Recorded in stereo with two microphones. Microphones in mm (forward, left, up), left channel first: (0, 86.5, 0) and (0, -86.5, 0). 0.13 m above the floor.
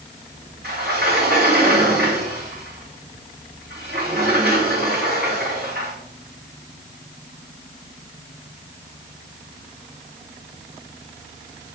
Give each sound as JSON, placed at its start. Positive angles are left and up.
{"t": 0.6, "sound": "a sliding door", "side_deg": -65, "distance_m": 2.5}